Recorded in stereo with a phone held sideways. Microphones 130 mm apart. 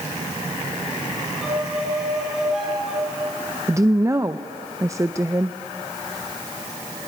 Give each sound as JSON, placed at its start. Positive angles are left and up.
{"t": 1.4, "sound": "a violin", "side_deg": -5, "distance_m": 6.0}
{"t": 3.7, "sound": "a woman speaking", "side_deg": -25, "distance_m": 0.6}